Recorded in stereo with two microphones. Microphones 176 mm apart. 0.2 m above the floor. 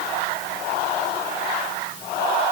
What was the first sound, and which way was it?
Only background noise.